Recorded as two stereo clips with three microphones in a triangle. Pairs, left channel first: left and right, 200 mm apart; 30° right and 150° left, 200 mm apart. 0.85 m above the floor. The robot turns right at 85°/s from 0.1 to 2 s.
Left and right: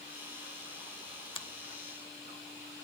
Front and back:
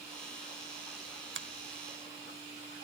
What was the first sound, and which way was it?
A finger snap, 150° left.